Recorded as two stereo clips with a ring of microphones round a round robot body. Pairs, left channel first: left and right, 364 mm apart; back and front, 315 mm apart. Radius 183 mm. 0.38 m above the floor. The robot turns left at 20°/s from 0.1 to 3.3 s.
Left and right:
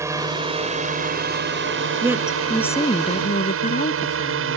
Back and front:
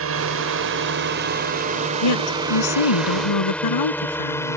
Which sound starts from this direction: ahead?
A drone, at 0.0 s.